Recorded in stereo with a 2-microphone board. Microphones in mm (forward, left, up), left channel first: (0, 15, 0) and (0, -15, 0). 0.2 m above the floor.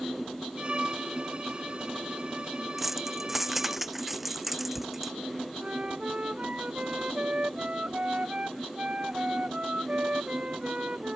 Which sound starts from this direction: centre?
Keys jangling, at 2.8 s.